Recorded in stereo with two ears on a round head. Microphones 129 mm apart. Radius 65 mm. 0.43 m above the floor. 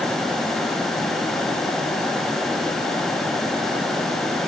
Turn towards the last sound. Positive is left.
No sound to turn to.